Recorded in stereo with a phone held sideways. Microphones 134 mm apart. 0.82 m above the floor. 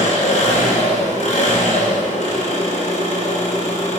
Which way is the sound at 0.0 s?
65° left (ahead or behind).